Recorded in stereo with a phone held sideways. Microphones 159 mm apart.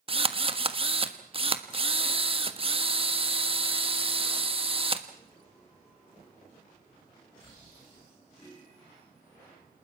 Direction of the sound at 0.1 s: 35° right (ahead or behind).